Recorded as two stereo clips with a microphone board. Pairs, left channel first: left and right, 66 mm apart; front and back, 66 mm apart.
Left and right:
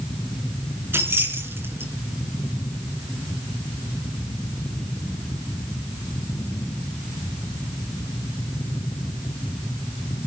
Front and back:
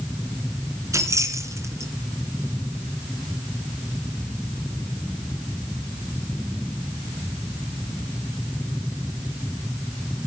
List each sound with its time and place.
0.9 s keys jangling: 145° right, 2.5 m